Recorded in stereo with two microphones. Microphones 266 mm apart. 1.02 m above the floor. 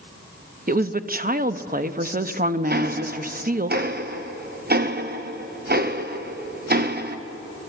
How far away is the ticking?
About 0.9 m.